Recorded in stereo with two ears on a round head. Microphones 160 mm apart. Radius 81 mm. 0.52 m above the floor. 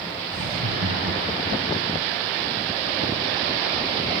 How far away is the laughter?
About 5 m.